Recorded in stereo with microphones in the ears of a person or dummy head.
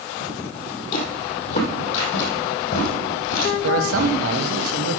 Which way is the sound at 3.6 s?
70° right (ahead or behind).